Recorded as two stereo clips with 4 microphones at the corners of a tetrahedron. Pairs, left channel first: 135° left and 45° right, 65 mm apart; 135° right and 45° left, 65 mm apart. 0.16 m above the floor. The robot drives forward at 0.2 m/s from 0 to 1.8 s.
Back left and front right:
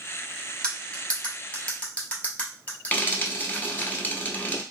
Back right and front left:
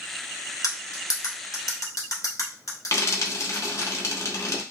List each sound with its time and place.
0.6 s cutlery clinking: 150° right, 1.3 m; by 3.9 s 155° right, 1.4 m
2.9 s frying: 170° right, 1.0 m